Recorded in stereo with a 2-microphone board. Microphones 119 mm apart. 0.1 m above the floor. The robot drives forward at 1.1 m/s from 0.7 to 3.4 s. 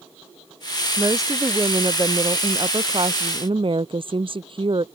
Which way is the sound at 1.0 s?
25° right (ahead or behind).